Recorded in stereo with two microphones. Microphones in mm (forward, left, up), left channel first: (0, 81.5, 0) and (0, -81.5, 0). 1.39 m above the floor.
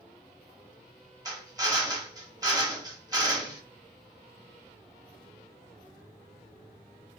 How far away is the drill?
About 1.3 m.